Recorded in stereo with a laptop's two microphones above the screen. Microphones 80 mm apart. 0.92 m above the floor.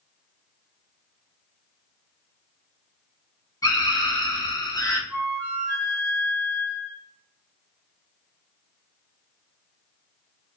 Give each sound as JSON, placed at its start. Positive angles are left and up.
{"t": 3.6, "sound": "a scream", "side_deg": 45, "distance_m": 1.1}
{"t": 5.1, "sound": "a flute", "side_deg": 20, "distance_m": 0.8}